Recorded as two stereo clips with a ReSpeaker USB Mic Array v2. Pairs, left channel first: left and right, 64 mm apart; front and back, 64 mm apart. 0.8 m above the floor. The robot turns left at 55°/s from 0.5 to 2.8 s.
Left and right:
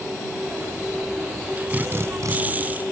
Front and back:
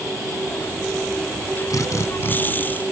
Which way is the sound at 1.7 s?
25° right.